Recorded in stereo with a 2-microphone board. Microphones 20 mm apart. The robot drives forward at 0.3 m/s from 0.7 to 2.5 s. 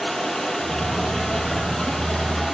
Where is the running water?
50° left (ahead or behind), 4.5 m; by 2.6 s 45° left (ahead or behind), 4.5 m.